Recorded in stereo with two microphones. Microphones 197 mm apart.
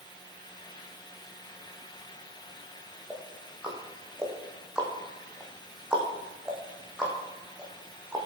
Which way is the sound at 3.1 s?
5° right (ahead or behind).